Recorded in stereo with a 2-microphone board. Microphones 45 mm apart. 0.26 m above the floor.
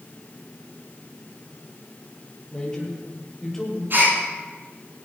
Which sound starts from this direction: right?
A gasp, at 3.9 s.